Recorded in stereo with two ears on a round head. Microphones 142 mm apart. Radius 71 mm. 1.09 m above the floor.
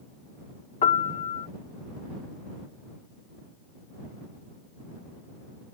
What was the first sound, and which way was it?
A piano, 45° left (ahead or behind).